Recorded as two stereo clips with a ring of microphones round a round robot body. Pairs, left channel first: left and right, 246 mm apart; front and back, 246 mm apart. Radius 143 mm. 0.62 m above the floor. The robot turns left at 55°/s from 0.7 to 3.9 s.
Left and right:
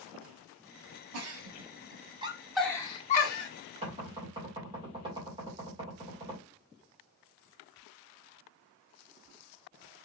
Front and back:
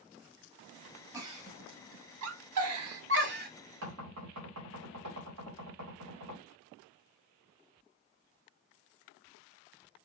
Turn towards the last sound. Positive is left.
turn(degrees=-160)